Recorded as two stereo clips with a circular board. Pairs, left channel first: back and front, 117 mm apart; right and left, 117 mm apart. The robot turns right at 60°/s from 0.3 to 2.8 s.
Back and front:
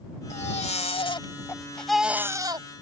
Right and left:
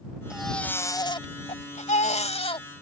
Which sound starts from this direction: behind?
A baby crying, at 0.3 s.